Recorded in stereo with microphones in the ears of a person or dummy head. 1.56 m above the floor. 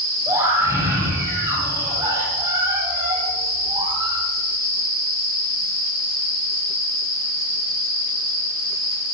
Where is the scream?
15° right (ahead or behind), 9.5 m; by 4.2 s 30° right (ahead or behind), 8 m.